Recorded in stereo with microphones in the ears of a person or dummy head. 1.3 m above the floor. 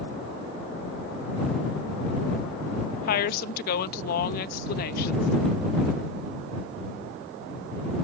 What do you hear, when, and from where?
3.1 s a woman speaking: 55° left (ahead or behind)